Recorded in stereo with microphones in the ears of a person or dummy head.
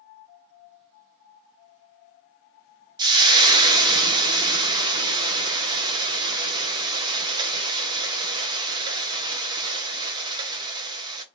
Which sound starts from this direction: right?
Frying, at 3.0 s.